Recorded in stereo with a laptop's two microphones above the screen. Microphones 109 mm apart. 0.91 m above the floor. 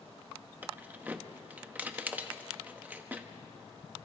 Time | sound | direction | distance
0.6 | keys jangling | 15° right (ahead or behind) | 0.8 m